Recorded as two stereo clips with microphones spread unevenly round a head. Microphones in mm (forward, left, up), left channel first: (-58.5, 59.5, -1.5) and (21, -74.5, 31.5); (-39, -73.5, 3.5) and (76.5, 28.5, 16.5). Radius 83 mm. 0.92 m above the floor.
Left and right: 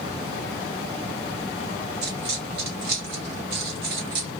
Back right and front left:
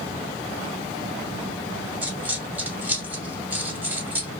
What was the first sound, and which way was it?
A dropped coin, 35° right.